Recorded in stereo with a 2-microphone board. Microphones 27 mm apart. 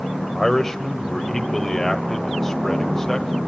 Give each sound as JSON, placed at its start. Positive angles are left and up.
{"t": 0.3, "sound": "a man speaking", "side_deg": 15, "distance_m": 1.5}